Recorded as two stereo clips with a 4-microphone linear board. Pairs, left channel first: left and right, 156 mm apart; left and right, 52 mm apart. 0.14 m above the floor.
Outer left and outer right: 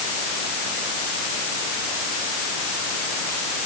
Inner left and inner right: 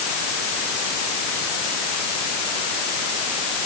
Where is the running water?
I don't hear running water.